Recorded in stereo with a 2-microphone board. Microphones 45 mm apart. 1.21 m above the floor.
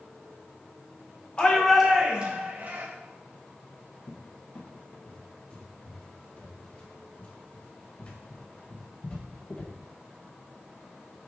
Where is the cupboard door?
30° left (ahead or behind), 1.3 m.